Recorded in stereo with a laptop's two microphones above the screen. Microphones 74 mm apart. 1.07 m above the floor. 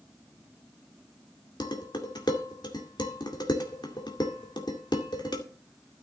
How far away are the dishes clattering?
About 2 m.